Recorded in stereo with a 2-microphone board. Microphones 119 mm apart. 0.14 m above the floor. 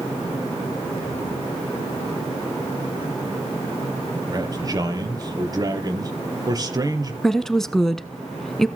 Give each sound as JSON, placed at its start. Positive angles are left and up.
{"t": 4.3, "sound": "a man speaking", "side_deg": -30, "distance_m": 4.0}
{"t": 7.2, "sound": "a woman speaking", "side_deg": 5, "distance_m": 1.0}